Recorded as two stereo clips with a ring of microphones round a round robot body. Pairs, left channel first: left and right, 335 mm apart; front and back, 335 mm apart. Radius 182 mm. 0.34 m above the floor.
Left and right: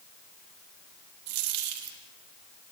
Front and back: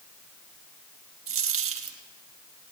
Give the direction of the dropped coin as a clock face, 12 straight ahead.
4 o'clock.